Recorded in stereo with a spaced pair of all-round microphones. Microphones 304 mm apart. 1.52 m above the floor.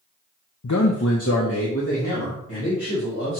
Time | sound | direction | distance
0.6 | a man speaking | 65° left (ahead or behind) | 0.7 m